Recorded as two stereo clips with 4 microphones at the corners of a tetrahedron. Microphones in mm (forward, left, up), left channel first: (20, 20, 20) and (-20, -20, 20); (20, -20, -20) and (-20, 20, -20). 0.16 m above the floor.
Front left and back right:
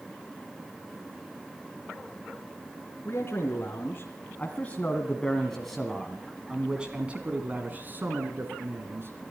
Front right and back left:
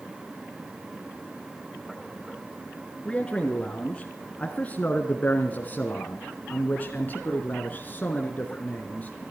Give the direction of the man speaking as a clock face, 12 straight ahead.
11 o'clock.